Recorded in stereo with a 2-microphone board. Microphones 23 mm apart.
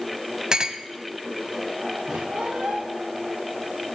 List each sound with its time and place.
0.5 s a clink: 35° right (ahead or behind), 0.6 m
2.1 s a squeak: 75° right (ahead or behind), 6 m